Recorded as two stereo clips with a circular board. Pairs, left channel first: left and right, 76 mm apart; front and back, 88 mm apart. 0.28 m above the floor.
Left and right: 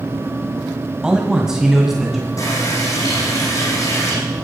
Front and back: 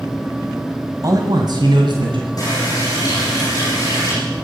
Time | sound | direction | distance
1.0 | a man speaking | 165° right | 1.5 m
2.4 | a running tap | 50° left | 9 m